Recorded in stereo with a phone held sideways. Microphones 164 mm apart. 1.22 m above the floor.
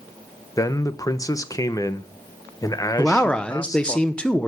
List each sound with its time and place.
0.6 s a man speaking: 20° left (ahead or behind), 0.7 m
3.0 s a man speaking: 5° left (ahead or behind), 0.8 m